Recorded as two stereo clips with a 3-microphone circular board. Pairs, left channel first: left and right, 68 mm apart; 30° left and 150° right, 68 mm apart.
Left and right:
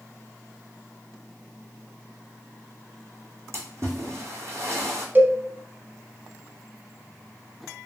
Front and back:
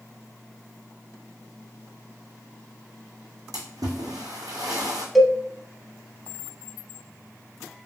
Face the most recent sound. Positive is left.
turn(degrees=-60)